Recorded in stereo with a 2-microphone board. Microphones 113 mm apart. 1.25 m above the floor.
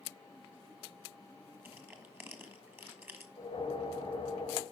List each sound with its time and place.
1.6 s crushing: 20° right (ahead or behind), 1.4 m
3.4 s a whoosh: 50° left (ahead or behind), 2 m